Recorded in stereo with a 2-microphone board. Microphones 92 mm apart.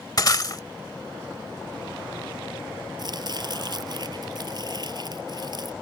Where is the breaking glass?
45° left (ahead or behind).